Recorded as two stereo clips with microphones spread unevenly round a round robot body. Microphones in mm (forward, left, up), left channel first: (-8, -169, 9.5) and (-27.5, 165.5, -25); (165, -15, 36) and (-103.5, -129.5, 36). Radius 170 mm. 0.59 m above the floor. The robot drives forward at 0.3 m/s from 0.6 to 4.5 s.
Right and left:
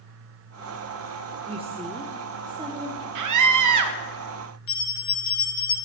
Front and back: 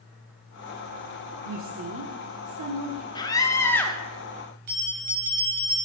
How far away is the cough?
No cough in this recording.